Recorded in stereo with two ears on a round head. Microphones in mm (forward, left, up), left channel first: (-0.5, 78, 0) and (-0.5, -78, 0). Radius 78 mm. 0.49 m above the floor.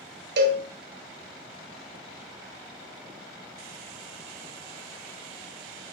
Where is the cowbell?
70° right (ahead or behind), 0.9 m.